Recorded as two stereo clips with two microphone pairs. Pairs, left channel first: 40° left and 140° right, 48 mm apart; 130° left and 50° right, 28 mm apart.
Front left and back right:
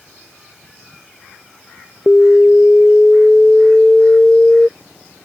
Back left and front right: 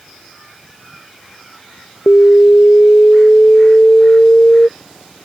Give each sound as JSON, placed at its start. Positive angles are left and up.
{"t": 2.1, "sound": "an alarm", "azimuth_deg": 110}